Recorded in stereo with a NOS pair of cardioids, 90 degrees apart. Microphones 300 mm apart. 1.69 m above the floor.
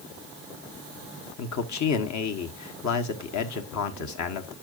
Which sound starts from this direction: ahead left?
A man speaking, at 1.4 s.